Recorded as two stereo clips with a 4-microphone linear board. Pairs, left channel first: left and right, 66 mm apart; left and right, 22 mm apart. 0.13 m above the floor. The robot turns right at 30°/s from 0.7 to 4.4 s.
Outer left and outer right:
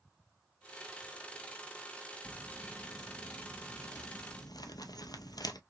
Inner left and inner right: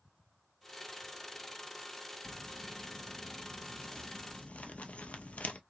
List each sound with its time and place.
2.2 s crumpling: 25° left (ahead or behind), 0.5 m; by 5.6 s 75° left (ahead or behind), 0.5 m